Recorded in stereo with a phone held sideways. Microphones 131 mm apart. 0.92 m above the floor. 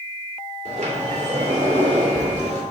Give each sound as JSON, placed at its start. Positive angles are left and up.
{"t": 0.7, "sound": "a sliding door", "side_deg": -60, "distance_m": 1.9}